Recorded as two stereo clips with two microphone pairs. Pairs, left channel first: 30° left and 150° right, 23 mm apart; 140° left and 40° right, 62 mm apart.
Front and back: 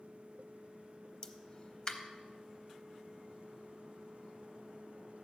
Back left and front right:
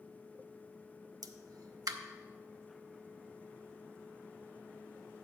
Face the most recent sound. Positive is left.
turn(degrees=-25)